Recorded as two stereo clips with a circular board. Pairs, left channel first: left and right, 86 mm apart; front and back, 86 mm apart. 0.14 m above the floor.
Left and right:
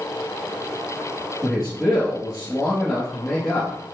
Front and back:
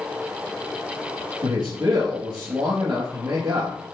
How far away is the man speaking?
About 3 m.